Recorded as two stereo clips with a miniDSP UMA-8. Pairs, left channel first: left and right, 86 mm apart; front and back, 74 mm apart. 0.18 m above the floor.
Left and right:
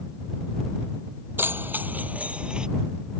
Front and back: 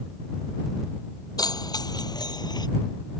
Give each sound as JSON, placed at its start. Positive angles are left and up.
{"t": 1.4, "sound": "keys jangling", "azimuth_deg": -25}